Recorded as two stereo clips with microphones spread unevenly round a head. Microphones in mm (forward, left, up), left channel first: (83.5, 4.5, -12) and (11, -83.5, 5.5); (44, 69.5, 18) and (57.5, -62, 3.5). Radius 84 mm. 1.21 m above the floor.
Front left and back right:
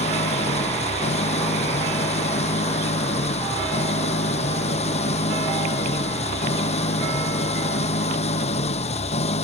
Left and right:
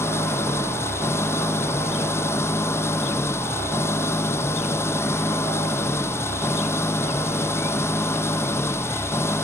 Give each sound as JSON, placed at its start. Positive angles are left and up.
{"t": 0.0, "sound": "an engine running", "azimuth_deg": 25}